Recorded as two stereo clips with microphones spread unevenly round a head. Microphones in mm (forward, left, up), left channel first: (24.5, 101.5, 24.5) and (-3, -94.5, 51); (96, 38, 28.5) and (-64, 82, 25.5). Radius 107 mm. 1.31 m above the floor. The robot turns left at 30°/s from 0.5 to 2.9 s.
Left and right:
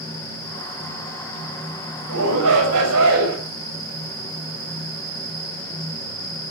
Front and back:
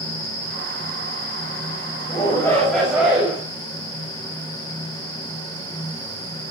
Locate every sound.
2.1 s a shout: 85° right, 7 m; by 3.4 s 110° right, 7 m